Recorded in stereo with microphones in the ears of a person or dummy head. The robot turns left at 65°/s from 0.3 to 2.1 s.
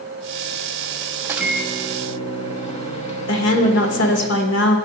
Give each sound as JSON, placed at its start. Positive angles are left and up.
{"t": 1.2, "sound": "a microwave", "azimuth_deg": -170, "distance_m": 0.9}
{"t": 3.3, "sound": "a woman speaking", "side_deg": 85, "distance_m": 1.4}